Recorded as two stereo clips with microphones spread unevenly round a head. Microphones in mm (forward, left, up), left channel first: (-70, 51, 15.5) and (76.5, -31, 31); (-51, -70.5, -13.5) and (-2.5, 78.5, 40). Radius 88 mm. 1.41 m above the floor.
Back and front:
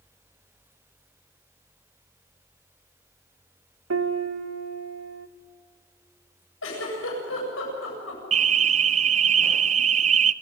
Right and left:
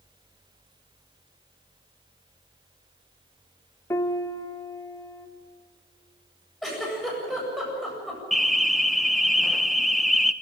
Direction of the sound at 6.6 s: 160° left.